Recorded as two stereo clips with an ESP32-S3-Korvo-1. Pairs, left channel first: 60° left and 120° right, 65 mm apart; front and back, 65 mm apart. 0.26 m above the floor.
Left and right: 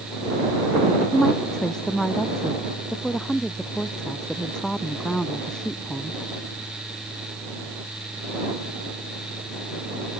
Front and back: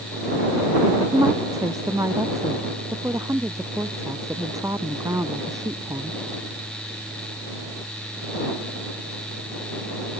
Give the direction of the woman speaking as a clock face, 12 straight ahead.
7 o'clock.